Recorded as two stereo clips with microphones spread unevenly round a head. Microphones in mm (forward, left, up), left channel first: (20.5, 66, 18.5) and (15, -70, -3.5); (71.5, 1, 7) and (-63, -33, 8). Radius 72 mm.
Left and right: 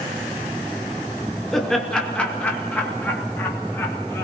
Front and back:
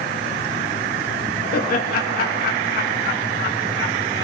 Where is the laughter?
5° right, 2 m; by 4.3 s 15° left, 3.5 m.